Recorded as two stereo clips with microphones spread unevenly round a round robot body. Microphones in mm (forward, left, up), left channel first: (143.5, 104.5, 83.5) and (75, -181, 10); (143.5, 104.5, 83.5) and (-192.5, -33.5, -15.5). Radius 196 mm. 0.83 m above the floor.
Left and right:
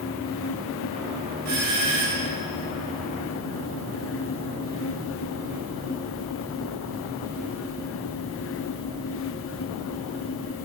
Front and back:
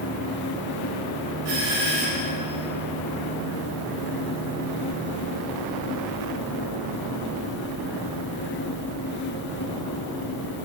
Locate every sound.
1.4 s a doorbell: 135° right, 5.5 m